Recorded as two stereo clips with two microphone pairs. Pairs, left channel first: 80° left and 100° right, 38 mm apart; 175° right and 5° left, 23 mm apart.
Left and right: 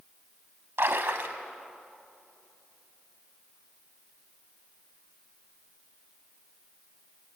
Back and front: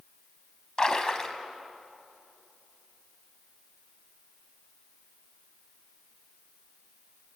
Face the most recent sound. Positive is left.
turn(degrees=-115)